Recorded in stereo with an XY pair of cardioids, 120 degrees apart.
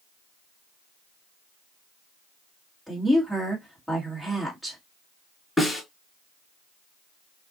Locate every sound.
2.9 s a woman speaking: straight ahead, 2.0 m
5.6 s a snare drum: 5° left, 4 m